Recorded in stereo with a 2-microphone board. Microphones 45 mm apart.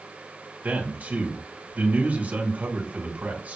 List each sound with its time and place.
0.6 s a man speaking: 35° right (ahead or behind), 1.4 m